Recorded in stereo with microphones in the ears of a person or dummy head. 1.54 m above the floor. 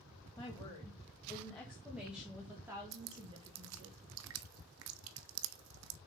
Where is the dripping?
75° right (ahead or behind), 0.7 m.